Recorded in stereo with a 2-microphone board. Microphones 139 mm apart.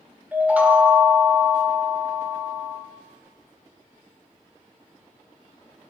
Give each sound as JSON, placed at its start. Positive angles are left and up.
{"t": 0.3, "sound": "a chime", "side_deg": -10, "distance_m": 1.1}